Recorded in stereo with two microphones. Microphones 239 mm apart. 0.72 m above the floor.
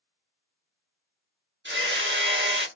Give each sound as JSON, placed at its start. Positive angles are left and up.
{"t": 1.6, "sound": "hammering", "side_deg": -50, "distance_m": 0.8}